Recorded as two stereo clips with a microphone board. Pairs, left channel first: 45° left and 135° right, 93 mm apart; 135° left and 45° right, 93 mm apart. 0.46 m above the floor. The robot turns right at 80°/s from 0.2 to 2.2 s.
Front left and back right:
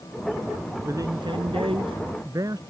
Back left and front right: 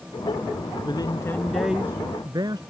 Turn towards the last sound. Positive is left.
turn(degrees=-85)